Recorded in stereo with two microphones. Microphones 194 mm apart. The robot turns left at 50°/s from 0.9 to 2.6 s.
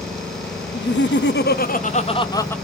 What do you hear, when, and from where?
0.7 s laughter: 95° left, 0.5 m; by 2.5 s 10° left, 0.5 m